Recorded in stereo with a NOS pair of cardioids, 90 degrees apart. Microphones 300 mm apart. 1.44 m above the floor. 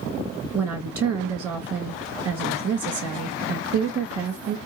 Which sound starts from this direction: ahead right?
A woman speaking, at 0.5 s.